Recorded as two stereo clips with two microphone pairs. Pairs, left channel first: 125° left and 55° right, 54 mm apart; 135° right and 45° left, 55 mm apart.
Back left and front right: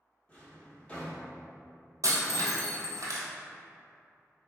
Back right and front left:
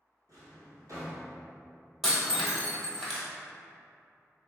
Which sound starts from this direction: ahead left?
A drawer, at 0.3 s.